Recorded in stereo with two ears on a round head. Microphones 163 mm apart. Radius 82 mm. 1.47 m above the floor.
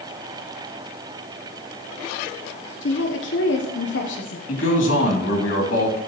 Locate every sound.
2.8 s a woman speaking: 70° left (ahead or behind), 0.9 m
4.5 s a man speaking: 85° left, 3 m